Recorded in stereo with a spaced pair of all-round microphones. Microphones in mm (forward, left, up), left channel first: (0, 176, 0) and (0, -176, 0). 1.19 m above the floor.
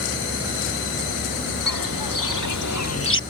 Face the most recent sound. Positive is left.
turn(degrees=35)  # may be behind; listen again after turning